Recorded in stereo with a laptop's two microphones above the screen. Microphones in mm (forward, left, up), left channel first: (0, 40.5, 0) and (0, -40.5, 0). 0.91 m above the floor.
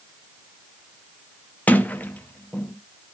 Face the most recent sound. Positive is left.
turn(degrees=20)  # may be behind; listen again after turning